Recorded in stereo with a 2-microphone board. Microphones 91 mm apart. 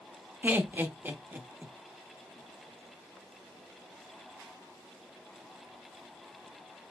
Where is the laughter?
25° right (ahead or behind), 0.8 m.